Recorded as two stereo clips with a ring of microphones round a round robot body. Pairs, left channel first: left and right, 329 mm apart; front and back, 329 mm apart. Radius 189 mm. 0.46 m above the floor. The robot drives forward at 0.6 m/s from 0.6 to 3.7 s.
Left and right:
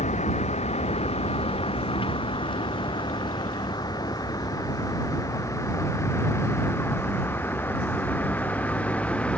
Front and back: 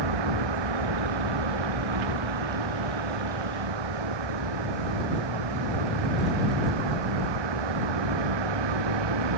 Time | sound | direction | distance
0.0 | a vehicle | 160° left | ?